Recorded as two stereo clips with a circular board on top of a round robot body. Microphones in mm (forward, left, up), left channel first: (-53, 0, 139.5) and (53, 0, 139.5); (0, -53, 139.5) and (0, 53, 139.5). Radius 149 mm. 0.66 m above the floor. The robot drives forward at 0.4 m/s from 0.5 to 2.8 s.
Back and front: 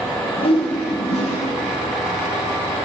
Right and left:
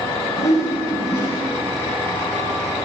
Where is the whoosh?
150° right, 0.6 m; by 1.4 s 165° right, 0.9 m.